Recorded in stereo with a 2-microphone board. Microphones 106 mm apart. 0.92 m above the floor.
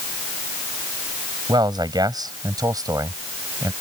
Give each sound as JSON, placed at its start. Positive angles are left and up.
{"t": 1.5, "sound": "a man speaking", "side_deg": -40}